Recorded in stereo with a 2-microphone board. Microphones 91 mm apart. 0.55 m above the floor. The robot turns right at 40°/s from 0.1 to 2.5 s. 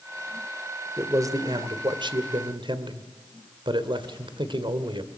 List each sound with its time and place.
1.0 s a man speaking: 145° right, 1.8 m; by 5.1 s 85° right, 1.8 m